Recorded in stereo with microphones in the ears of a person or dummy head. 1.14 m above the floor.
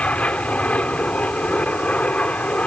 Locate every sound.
0.0 s an aircraft: 10° left (ahead or behind)